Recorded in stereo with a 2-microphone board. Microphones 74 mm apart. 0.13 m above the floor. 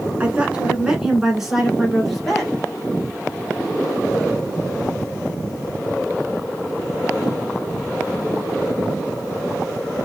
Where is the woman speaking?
20° right (ahead or behind), 1.5 m; by 2.5 s 5° left (ahead or behind), 2.5 m.